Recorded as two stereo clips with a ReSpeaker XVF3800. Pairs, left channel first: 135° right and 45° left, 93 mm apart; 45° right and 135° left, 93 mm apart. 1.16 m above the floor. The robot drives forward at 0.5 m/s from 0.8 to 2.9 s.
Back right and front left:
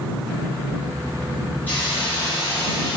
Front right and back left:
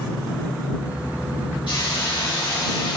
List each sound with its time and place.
1.7 s a hiss: 65° right, 4 m; by 3.0 s 75° right, 3.5 m